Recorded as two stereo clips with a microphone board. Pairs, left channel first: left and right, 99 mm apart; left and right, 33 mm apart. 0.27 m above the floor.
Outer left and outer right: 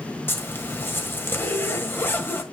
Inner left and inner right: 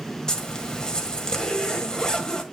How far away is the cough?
No cough in this recording.